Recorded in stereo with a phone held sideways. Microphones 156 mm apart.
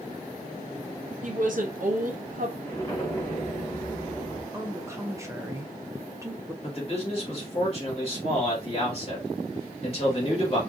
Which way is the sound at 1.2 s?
60° right (ahead or behind).